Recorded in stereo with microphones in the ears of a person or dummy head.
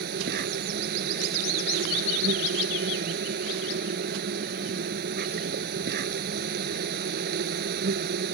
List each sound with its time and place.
0.0 s an insect: 60° right (ahead or behind)